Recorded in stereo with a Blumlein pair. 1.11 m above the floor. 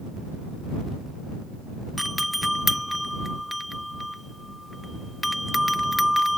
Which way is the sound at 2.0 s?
Straight ahead.